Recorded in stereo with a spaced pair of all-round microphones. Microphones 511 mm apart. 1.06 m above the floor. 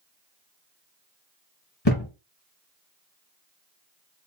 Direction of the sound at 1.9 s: 50° left (ahead or behind).